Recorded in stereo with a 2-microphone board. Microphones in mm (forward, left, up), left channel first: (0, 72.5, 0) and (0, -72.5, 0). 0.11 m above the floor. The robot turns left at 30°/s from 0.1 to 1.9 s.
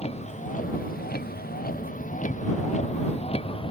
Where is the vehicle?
45° left (ahead or behind); by 3.7 s 35° left (ahead or behind).